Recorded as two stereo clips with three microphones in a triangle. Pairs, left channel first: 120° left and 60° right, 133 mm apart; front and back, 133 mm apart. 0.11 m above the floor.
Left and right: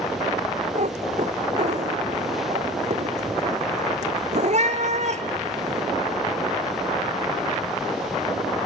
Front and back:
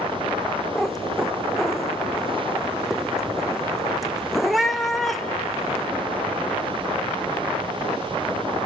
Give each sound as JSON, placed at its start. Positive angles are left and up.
{"t": 0.8, "sound": "a cat meowing", "azimuth_deg": -90, "distance_m": 0.9}